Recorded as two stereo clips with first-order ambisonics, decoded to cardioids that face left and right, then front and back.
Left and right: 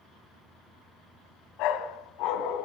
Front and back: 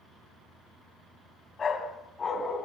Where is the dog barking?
65° left, 2.5 m.